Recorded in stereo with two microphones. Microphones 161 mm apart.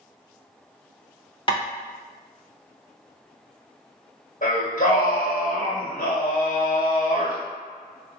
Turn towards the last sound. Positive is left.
turn(degrees=55)  # may be behind; listen again after turning